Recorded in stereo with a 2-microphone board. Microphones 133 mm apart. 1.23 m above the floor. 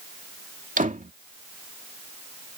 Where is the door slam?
80° right.